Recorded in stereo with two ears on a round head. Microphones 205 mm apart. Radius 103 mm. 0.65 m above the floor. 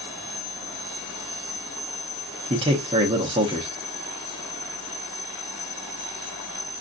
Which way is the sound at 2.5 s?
20° right (ahead or behind).